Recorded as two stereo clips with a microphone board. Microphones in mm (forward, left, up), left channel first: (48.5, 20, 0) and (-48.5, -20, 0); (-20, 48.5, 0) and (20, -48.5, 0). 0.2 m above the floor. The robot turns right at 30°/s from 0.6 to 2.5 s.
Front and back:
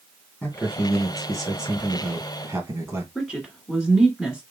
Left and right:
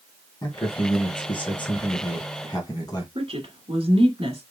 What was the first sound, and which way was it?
A man speaking, 90° left.